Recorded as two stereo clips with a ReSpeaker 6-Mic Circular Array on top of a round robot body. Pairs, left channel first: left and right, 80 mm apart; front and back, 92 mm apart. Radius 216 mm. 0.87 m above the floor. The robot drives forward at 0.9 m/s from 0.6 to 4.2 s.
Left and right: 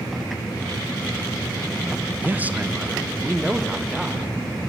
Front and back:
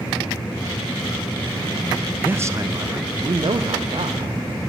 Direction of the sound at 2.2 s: 125° right.